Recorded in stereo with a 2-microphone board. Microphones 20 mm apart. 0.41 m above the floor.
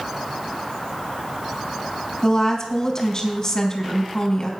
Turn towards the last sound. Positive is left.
turn(degrees=25)  # may be behind; listen again after turning